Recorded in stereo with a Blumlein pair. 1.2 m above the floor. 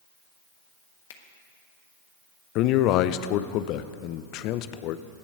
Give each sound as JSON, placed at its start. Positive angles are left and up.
{"t": 1.1, "sound": "a finger snap", "azimuth_deg": 55, "distance_m": 1.5}
{"t": 2.5, "sound": "a man speaking", "azimuth_deg": 40, "distance_m": 0.7}